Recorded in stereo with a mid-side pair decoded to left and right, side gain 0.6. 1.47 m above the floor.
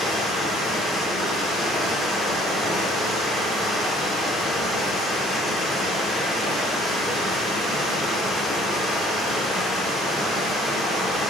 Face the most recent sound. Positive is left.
turn(degrees=20)